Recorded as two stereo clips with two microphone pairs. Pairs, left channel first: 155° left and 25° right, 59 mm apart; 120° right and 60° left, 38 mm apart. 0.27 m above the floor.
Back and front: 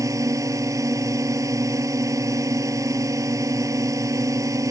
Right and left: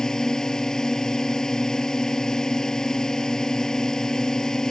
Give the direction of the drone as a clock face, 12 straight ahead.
2 o'clock.